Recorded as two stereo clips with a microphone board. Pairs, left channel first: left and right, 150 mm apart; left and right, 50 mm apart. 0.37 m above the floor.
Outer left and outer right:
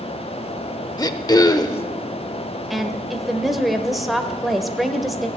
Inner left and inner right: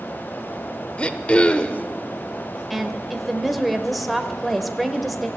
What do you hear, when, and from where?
1.0 s throat clearing: 25° left (ahead or behind), 0.6 m
2.7 s a woman speaking: centre (ahead or behind), 1.0 m